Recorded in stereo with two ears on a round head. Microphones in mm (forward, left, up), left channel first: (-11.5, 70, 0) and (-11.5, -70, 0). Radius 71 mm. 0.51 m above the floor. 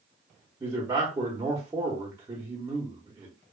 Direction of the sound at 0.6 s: 20° right (ahead or behind).